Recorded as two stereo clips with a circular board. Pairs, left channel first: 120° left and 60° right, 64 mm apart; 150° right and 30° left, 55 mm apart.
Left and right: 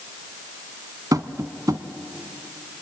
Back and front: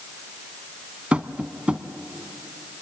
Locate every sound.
1.1 s tapping: 40° right, 0.9 m